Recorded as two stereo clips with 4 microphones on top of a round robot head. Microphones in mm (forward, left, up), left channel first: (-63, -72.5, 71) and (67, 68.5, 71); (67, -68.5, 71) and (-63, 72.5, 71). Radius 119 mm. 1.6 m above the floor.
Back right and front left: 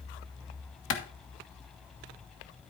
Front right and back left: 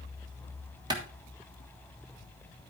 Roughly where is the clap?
Behind right.